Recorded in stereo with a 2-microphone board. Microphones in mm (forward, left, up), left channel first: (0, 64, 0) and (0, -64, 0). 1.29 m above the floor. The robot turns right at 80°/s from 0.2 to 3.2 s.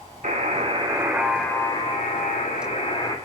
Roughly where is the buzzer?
Right.